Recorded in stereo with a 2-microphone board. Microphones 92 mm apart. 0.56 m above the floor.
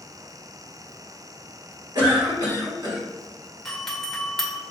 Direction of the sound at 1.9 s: 50° right (ahead or behind).